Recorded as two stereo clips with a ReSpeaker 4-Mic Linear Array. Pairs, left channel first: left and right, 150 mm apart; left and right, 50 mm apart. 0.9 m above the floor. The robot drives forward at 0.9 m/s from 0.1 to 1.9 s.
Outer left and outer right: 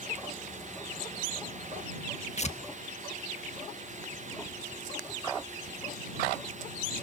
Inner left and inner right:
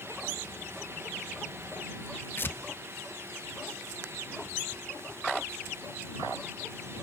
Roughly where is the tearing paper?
Left.